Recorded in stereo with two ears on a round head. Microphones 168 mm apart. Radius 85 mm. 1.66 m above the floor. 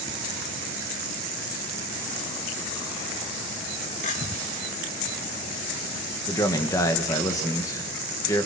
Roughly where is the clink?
Left.